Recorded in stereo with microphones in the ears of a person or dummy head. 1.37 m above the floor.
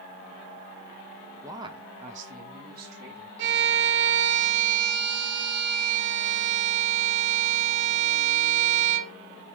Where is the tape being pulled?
No tape being pulled in this recording.